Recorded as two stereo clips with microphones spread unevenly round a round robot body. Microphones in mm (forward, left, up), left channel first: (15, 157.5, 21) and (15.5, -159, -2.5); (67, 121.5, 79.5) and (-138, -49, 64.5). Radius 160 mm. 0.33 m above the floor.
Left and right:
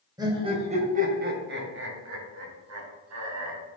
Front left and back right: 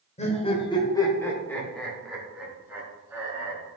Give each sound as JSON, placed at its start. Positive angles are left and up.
{"t": 0.2, "sound": "laughter", "azimuth_deg": -20, "distance_m": 1.9}